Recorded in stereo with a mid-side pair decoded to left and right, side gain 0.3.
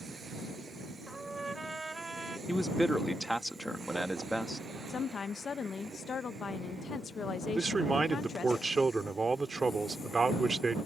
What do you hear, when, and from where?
1.1 s a trumpet: 30° right
2.5 s a man speaking: straight ahead
4.9 s a woman speaking: 65° left
7.5 s a man speaking: 40° right